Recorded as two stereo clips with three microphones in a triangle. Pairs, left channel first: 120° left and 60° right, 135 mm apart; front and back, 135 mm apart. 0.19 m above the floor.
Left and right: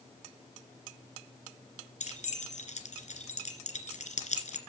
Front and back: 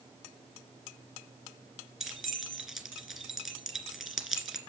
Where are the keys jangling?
90° left, 3 m.